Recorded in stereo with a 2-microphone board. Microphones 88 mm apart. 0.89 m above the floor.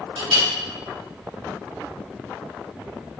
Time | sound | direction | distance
0.2 | a clink | 85° right | 1.8 m